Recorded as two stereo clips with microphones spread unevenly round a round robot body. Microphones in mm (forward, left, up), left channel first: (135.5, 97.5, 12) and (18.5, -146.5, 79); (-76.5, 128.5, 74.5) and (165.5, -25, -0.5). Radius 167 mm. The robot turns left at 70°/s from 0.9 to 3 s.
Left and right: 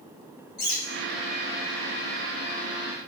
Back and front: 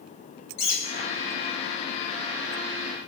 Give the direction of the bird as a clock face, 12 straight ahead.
8 o'clock.